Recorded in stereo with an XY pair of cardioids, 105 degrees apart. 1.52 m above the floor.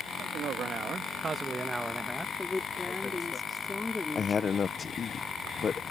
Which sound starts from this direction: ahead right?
A man speaking, at 0.2 s.